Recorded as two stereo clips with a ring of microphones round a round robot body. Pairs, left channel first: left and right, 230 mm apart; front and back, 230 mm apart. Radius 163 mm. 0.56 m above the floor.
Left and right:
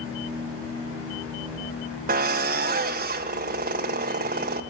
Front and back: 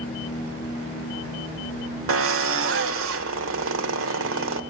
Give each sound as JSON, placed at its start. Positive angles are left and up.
{"t": 2.1, "sound": "a drill", "azimuth_deg": -150, "distance_m": 1.6}